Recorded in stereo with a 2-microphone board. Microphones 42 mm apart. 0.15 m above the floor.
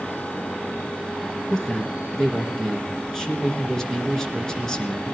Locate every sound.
1.5 s a man speaking: 15° left (ahead or behind), 2 m